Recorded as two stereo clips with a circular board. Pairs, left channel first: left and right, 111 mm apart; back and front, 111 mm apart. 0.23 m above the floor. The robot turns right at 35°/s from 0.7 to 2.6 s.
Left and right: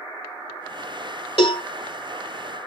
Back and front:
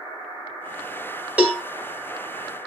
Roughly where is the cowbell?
Left.